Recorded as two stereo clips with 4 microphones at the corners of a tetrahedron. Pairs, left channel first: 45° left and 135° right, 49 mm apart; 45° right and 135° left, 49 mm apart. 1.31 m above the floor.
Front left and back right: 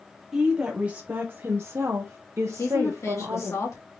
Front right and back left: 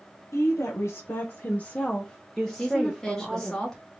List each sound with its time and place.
0.3 s a woman speaking: 55° right, 1.0 m; by 3.5 s 150° right, 1.2 m
2.5 s a woman speaking: 35° left, 1.6 m